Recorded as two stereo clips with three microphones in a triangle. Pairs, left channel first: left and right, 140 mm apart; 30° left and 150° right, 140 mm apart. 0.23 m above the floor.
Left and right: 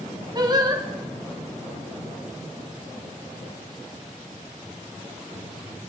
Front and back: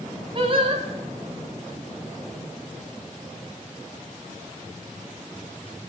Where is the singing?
130° right, 2 m.